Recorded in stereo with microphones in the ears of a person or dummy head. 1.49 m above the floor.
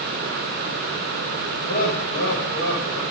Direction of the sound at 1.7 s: 50° left (ahead or behind).